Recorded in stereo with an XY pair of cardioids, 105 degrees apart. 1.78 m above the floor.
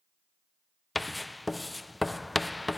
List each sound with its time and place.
0.9 s writing: 10° left, 0.5 m